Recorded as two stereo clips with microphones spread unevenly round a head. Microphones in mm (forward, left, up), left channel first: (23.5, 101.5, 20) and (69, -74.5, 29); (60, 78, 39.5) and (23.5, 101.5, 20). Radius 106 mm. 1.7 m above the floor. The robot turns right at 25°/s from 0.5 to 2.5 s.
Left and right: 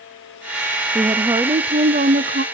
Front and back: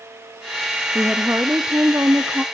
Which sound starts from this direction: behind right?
A woman speaking, at 0.9 s.